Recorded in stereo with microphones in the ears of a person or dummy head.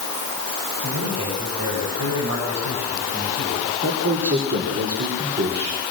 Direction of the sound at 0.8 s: 90° right.